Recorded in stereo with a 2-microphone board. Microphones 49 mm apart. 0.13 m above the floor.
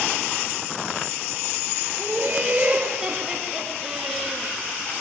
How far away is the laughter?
About 2 m.